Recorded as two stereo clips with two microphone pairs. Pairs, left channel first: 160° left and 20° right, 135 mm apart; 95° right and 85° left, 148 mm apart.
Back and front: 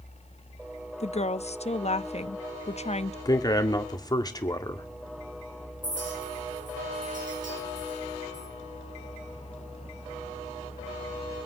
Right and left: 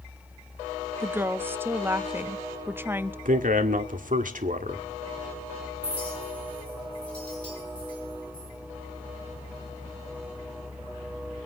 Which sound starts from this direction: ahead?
A clink, at 5.8 s.